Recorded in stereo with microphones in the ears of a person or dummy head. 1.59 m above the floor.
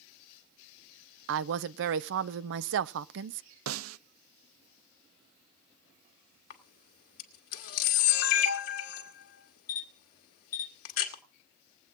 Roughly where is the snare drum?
Right.